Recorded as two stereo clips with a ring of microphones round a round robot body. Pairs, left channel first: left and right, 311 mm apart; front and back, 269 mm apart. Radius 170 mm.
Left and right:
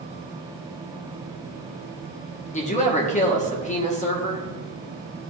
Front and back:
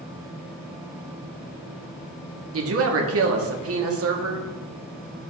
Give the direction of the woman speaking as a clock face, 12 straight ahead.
7 o'clock.